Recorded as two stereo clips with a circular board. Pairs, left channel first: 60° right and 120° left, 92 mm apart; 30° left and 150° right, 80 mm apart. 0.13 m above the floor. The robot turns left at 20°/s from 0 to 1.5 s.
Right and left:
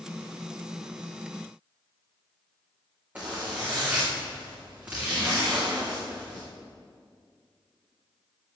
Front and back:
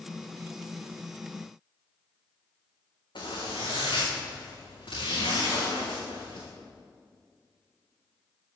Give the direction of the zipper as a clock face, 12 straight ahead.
10 o'clock.